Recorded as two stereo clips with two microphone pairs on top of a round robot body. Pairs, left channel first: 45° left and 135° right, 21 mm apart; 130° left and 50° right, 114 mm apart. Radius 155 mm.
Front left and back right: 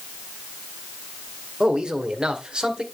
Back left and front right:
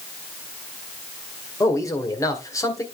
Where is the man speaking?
175° right, 2 m.